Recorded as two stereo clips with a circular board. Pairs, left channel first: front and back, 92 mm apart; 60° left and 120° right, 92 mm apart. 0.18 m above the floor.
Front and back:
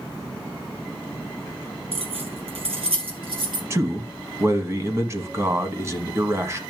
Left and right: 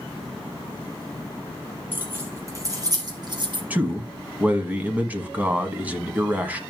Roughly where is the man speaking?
Behind.